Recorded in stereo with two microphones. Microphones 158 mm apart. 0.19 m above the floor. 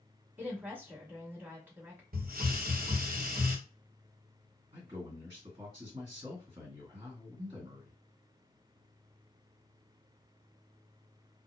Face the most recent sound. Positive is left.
turn(degrees=-40)  # may be behind; listen again after turning